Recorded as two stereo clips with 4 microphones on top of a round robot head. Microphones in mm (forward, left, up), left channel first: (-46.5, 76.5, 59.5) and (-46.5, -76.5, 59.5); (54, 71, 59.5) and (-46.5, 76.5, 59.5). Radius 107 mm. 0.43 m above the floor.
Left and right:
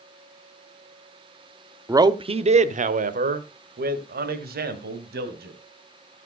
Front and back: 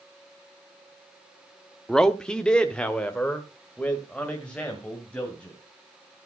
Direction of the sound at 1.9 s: 75° right.